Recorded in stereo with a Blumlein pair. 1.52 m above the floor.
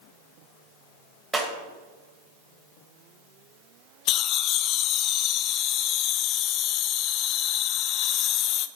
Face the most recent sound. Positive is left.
turn(degrees=35)